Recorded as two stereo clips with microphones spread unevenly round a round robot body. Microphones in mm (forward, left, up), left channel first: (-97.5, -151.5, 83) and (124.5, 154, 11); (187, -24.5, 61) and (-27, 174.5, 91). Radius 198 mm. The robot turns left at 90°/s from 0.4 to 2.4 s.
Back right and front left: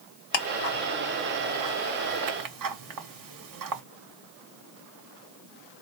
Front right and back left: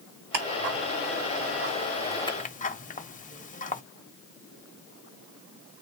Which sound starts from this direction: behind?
Ticking, at 0.3 s.